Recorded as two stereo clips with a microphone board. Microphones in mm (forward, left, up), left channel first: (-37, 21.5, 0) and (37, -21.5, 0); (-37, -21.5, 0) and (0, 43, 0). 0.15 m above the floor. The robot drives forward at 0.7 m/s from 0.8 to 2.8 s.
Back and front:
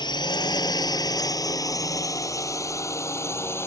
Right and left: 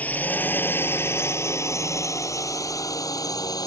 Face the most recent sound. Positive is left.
turn(degrees=-150)